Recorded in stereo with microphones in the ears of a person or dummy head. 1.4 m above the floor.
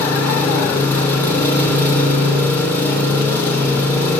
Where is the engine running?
20° left (ahead or behind), 4.5 m.